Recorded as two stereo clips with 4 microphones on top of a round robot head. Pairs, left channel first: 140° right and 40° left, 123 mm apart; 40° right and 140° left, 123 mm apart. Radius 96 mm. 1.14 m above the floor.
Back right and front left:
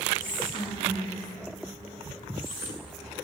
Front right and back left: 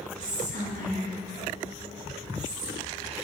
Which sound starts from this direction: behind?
Whispering, at 0.2 s.